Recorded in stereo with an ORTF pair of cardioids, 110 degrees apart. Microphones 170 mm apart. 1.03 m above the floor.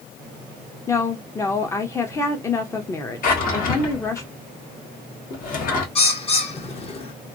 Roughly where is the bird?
Ahead left.